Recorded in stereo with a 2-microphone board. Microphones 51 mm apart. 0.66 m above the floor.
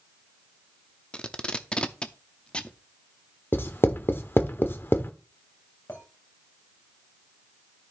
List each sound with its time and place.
1.1 s tape being pulled: 20° left (ahead or behind), 0.6 m
3.5 s writing: 45° left (ahead or behind), 0.8 m
5.9 s a clink: 50° left (ahead or behind), 2.5 m